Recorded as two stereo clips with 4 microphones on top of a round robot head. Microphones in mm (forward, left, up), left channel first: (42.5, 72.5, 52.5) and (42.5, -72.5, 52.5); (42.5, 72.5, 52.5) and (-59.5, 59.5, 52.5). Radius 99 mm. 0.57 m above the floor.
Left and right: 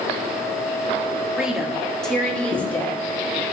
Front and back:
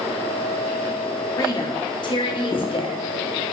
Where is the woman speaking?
10° right, 1.4 m; by 3.4 s 20° left, 2.5 m.